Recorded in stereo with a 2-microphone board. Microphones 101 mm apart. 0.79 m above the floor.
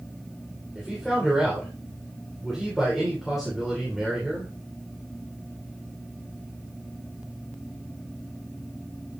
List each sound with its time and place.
0.8 s a man speaking: centre (ahead or behind), 3 m